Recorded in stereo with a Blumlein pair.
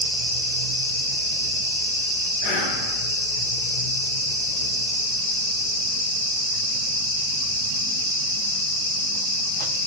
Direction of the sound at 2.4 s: 45° left.